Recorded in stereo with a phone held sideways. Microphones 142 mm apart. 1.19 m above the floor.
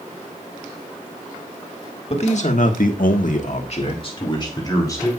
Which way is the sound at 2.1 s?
45° left (ahead or behind).